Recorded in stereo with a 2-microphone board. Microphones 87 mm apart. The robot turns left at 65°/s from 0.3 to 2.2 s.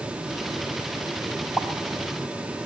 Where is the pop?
10° left (ahead or behind), 0.7 m; by 1.7 s centre (ahead or behind), 0.7 m.